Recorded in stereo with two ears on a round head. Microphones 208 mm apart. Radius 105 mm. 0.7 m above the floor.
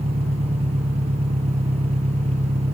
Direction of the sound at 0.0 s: 30° right (ahead or behind).